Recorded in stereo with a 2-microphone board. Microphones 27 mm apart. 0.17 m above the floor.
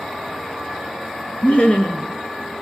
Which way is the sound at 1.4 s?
60° left (ahead or behind).